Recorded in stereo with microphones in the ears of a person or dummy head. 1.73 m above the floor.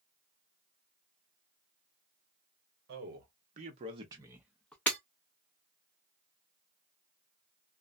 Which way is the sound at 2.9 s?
60° right (ahead or behind).